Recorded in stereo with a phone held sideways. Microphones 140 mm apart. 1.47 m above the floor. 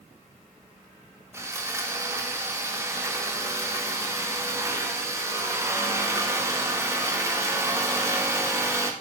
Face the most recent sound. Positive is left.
turn(degrees=-20)  # may be behind; listen again after turning